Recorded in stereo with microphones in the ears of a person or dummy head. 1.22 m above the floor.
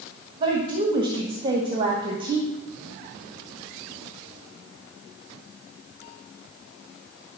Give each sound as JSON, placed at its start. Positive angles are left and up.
{"t": 0.4, "sound": "a woman speaking", "side_deg": -25, "distance_m": 1.5}